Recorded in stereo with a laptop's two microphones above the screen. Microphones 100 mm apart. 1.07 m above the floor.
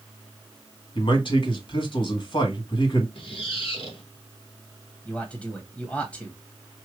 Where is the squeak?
60° left (ahead or behind), 1.5 m.